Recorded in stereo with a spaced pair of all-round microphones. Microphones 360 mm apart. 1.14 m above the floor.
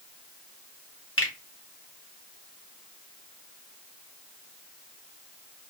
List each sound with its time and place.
1.2 s a finger snap: 35° left (ahead or behind), 0.9 m